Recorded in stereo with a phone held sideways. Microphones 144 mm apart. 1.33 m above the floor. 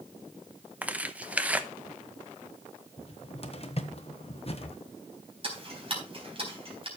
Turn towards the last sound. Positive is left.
turn(degrees=-40)  # may be behind; listen again after turning